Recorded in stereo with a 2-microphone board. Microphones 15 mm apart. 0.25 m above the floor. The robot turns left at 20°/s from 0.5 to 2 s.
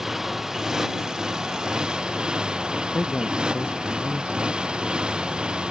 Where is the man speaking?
80° left.